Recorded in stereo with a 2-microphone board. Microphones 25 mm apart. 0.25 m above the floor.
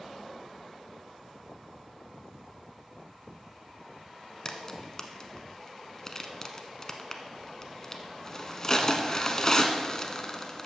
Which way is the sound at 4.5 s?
25° left (ahead or behind).